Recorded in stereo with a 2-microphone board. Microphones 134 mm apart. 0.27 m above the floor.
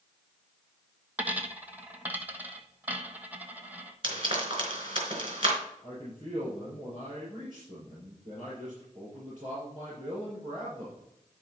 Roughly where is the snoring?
No snoring in this recording.